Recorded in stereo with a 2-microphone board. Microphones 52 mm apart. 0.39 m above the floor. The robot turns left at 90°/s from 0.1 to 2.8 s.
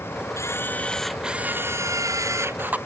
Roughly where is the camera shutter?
Ahead left.